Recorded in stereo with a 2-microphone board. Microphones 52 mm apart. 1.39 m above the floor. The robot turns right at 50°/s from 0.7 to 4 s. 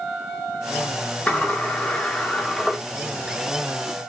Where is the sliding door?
25° left (ahead or behind), 1.1 m; by 2.8 s 5° right (ahead or behind), 1.1 m.